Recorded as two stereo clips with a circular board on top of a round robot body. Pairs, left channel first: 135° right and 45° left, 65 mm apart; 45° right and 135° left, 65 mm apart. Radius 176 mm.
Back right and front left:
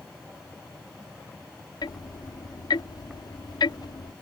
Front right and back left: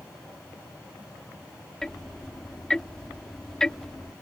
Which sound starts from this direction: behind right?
Ticking, at 1.8 s.